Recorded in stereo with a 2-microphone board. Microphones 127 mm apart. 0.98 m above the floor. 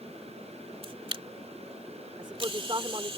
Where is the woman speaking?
35° right (ahead or behind).